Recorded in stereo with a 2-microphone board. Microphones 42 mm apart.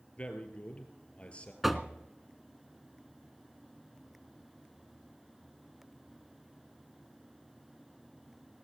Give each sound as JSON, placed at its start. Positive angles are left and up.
{"t": 0.2, "sound": "a man speaking", "side_deg": 30, "distance_m": 2.0}
{"t": 1.6, "sound": "knocking", "side_deg": -5, "distance_m": 0.8}